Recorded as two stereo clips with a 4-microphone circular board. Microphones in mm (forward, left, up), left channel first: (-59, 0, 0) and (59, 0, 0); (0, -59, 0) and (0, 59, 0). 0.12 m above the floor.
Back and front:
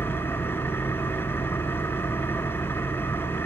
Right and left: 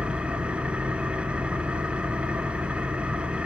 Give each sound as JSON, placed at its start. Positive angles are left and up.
{"t": 0.0, "sound": "an engine running", "azimuth_deg": 150, "distance_m": 1.4}